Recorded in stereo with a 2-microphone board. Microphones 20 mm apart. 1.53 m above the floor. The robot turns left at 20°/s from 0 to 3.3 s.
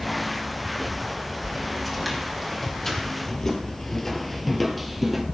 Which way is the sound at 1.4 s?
10° right (ahead or behind).